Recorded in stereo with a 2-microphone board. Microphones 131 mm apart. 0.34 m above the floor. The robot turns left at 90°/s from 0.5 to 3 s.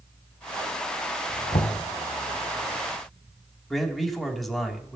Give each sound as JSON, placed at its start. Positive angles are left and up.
{"t": 1.5, "sound": "knocking", "azimuth_deg": 90, "distance_m": 1.4}
{"t": 3.7, "sound": "a man speaking", "side_deg": 0, "distance_m": 2.5}